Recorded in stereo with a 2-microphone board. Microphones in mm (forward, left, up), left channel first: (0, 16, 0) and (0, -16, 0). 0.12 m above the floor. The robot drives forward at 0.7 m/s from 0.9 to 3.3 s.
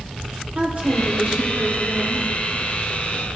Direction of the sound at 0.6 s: 45° right (ahead or behind).